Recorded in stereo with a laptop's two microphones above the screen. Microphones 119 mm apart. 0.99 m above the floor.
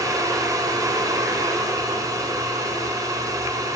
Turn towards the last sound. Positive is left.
turn(degrees=-30)  # may be behind; listen again after turning